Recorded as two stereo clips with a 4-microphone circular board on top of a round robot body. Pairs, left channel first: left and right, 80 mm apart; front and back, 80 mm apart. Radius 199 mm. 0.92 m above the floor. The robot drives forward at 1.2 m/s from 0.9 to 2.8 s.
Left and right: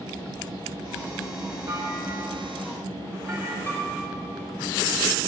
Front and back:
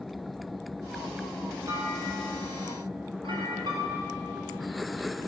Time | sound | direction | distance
1.7 | a clunk | 140° right | 0.7 m
3.7 | a piano | 155° left | 2 m